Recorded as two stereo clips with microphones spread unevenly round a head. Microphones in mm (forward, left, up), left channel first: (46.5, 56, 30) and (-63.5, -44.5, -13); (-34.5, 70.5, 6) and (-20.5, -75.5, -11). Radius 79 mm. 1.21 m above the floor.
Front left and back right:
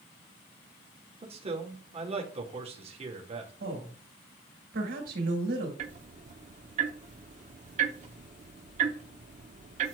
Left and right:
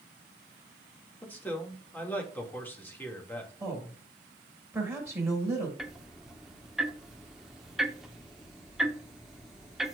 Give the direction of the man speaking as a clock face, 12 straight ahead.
6 o'clock.